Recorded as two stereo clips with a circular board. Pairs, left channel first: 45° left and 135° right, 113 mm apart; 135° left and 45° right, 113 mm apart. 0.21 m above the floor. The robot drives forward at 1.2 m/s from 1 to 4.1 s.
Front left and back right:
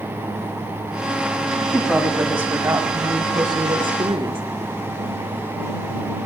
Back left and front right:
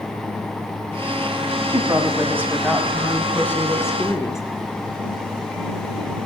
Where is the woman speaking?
35° right, 1.6 m; by 4.4 s 165° right, 2.5 m.